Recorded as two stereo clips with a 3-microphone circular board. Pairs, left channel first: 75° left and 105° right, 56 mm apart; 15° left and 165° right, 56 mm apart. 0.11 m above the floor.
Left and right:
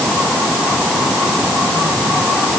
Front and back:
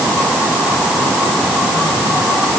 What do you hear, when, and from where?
Only background noise.